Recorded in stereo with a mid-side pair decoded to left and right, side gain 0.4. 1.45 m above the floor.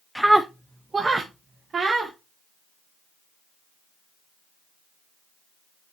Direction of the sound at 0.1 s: 5° right.